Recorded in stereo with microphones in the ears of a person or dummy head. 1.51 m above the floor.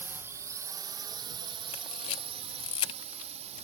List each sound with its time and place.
0.0 s a drone: 10° right (ahead or behind); by 3.6 s 40° right (ahead or behind)
1.7 s a camera shutter: 35° left (ahead or behind)